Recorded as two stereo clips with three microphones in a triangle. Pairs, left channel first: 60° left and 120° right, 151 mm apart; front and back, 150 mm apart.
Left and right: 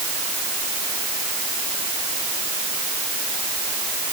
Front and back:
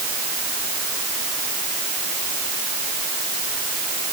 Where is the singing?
No singing in this recording.